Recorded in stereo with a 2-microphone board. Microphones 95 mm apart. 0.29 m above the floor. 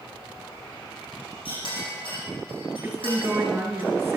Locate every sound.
1.4 s a clink: 65° left (ahead or behind), 8.5 m
2.8 s a woman speaking: 20° right (ahead or behind), 3.5 m